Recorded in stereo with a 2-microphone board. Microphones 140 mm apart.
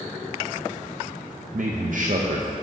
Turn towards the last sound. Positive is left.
turn(degrees=-65)  # may be behind; listen again after turning